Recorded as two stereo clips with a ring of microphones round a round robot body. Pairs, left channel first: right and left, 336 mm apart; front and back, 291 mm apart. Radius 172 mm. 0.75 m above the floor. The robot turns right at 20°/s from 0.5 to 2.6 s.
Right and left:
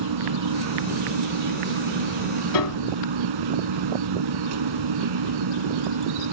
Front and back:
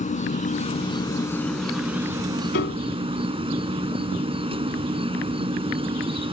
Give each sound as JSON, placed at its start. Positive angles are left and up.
{"t": 0.0, "sound": "an insect", "azimuth_deg": 65}
{"t": 2.5, "sound": "a piano", "azimuth_deg": -60}